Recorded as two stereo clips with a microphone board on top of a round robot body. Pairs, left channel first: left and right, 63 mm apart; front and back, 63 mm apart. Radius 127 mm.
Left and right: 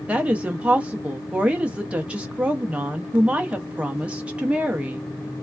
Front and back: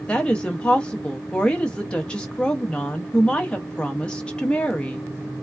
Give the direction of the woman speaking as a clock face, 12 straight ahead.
2 o'clock.